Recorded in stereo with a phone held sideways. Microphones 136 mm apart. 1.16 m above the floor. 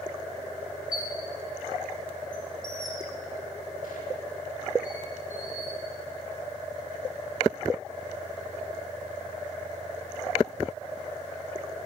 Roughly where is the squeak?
Left.